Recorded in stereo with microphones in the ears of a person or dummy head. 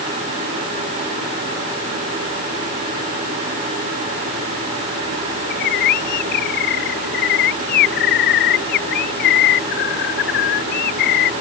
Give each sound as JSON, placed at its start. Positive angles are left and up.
{"t": 5.5, "sound": "a bird", "side_deg": 55}